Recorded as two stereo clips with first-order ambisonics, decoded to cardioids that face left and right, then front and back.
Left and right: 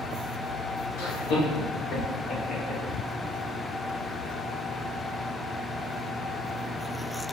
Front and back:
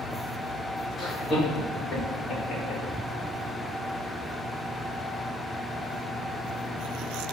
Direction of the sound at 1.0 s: 75° left.